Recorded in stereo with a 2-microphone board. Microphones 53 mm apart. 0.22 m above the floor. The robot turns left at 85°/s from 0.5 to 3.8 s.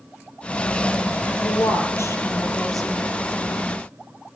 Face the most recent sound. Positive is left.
turn(degrees=-85)